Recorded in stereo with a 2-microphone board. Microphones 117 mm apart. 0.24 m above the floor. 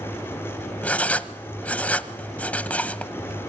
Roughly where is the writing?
Centre.